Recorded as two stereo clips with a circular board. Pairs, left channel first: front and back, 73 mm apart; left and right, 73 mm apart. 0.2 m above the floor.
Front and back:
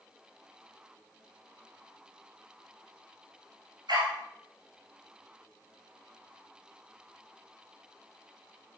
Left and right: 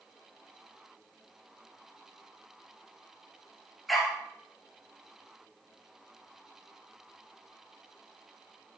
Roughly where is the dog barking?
Behind.